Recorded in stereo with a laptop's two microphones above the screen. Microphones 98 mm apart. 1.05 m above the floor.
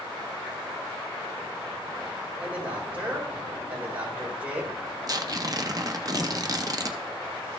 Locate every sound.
2.4 s a man speaking: 15° right (ahead or behind), 4 m
5.1 s tearing paper: 40° right (ahead or behind), 0.6 m